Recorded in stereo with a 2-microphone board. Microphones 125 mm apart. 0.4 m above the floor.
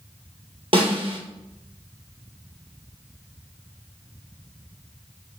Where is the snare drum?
50° right (ahead or behind), 2.5 m.